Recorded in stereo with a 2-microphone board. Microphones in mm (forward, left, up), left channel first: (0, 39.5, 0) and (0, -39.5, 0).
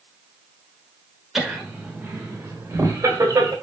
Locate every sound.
1.4 s laughter: 5° right (ahead or behind), 1.2 m; by 3.5 s 40° right (ahead or behind), 1.8 m